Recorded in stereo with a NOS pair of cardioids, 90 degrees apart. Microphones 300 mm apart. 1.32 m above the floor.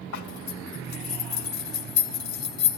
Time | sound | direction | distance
0.1 | a zipper | 70° left | 3 m